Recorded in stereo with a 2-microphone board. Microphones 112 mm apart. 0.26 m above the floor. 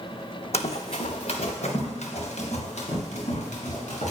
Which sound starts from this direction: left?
Running footsteps, at 0.5 s.